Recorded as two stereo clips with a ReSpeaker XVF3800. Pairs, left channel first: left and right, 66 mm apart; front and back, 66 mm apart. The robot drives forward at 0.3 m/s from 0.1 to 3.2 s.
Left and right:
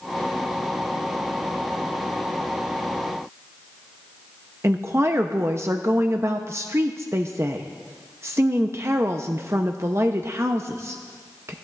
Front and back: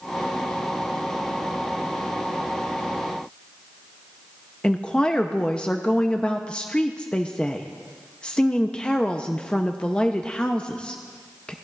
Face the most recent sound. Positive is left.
turn(degrees=-70)